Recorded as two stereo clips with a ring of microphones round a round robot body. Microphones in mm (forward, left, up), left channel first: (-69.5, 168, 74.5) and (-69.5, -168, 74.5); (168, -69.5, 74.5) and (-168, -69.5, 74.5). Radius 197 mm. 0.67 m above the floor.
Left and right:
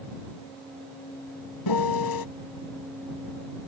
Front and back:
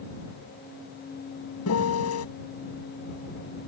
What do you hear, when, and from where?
1.7 s a piano: 55° left